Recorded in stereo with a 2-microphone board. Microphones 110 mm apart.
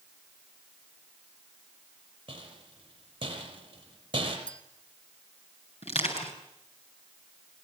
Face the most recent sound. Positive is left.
turn(degrees=65)  # may be behind; listen again after turning